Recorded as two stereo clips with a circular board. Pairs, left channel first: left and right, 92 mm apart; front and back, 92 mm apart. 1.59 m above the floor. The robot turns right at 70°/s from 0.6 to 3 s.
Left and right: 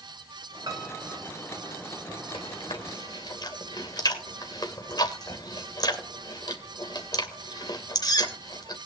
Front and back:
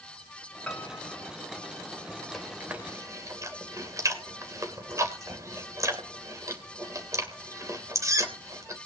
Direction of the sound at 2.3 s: 85° left.